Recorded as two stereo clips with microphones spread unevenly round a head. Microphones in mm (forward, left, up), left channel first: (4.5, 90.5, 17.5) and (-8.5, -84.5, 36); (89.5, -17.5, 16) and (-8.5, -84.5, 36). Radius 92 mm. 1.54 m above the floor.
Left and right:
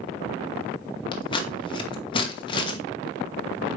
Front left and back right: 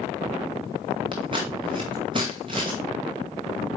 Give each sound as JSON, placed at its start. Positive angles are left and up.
{"t": 1.1, "sound": "scissors", "azimuth_deg": 150, "distance_m": 1.1}